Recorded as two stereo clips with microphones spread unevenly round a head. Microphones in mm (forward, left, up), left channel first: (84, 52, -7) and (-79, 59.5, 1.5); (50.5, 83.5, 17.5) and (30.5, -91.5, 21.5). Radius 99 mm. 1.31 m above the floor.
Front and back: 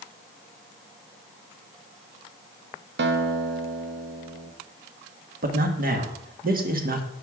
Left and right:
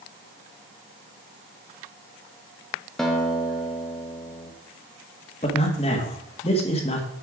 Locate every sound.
3.0 s a guitar: 170° left, 1.1 m
5.4 s a man speaking: 145° left, 1.7 m